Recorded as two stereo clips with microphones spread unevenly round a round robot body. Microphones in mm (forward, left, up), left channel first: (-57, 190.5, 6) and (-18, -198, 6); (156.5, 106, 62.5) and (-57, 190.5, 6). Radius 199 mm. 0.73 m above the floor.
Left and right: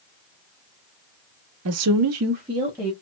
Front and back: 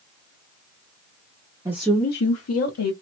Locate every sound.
1.6 s a woman speaking: 135° right, 0.8 m; by 2.9 s 5° left, 1.3 m